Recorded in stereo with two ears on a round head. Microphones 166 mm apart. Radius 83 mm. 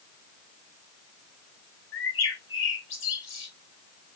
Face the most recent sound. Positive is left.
turn(degrees=75)  # may be behind; listen again after turning